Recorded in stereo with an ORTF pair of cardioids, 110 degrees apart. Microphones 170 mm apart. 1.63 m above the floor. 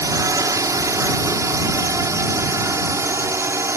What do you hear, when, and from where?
0.0 s a drone: 20° right; by 3.8 s 15° right